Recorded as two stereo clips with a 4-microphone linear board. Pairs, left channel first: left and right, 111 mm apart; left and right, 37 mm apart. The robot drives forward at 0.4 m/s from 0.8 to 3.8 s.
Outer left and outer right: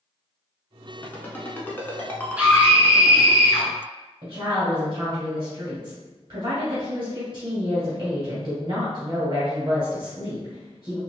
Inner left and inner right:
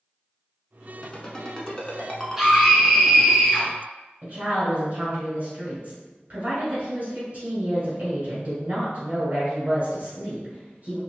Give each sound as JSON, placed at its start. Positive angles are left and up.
{"t": 1.0, "sound": "a ringtone", "side_deg": 15, "distance_m": 0.9}
{"t": 2.4, "sound": "a scream", "side_deg": -10, "distance_m": 1.2}
{"t": 4.2, "sound": "a woman speaking", "side_deg": -40, "distance_m": 1.8}